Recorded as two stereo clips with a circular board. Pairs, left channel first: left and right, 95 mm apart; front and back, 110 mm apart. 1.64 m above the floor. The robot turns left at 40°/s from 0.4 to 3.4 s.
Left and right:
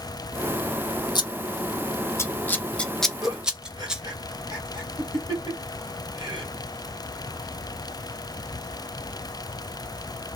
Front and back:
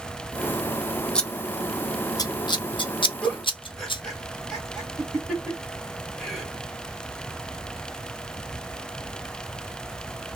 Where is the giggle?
85° right, 2 m; by 6.5 s 90° right, 2 m.